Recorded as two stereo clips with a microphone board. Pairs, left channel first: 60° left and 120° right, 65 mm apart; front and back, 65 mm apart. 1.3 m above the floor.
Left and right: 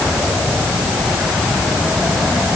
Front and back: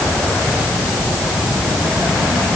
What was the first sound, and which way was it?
Only background noise.